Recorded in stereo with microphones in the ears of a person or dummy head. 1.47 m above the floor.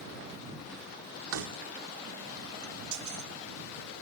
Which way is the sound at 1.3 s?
75° right (ahead or behind).